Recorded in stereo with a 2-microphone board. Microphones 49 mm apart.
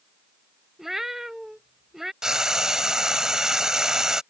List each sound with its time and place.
0.8 s a cat meowing: 5° right (ahead or behind)
2.2 s frying: 15° right (ahead or behind)